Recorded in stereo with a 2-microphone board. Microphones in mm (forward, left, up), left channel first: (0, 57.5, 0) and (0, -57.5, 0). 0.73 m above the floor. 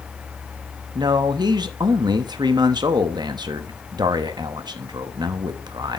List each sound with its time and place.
0.9 s a man speaking: 35° right (ahead or behind), 0.7 m